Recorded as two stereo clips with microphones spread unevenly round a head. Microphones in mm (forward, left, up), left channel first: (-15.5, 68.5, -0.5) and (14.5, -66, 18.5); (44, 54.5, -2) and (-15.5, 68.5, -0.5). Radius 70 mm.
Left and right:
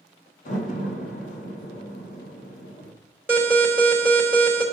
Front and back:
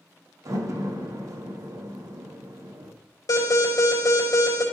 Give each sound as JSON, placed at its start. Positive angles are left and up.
{"t": 0.5, "sound": "a door slam", "azimuth_deg": 140, "distance_m": 1.5}
{"t": 3.3, "sound": "an alarm", "azimuth_deg": 0, "distance_m": 3.5}